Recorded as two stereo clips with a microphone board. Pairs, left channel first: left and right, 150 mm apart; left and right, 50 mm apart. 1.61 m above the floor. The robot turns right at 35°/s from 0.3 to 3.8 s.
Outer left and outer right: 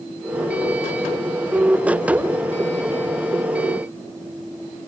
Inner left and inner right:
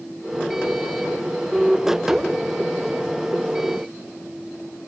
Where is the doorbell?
I don't hear a doorbell.